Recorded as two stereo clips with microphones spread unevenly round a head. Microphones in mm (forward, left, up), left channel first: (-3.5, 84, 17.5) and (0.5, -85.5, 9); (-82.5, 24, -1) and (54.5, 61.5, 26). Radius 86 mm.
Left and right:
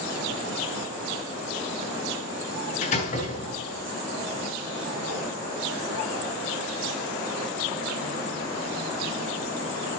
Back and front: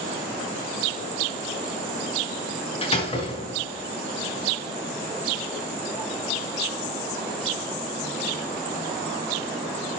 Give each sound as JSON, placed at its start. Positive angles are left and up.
{"t": 2.8, "sound": "a door slam", "azimuth_deg": 145, "distance_m": 7.5}